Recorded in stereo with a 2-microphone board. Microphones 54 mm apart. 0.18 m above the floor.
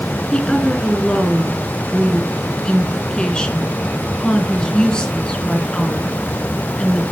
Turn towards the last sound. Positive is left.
turn(degrees=15)  # may be behind; listen again after turning